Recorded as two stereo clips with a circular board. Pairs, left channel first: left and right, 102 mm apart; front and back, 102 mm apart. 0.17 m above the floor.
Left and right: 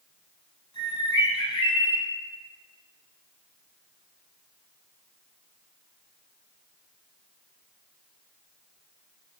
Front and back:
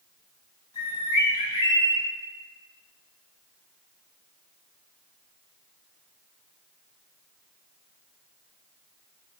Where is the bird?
40° left, 6.5 m.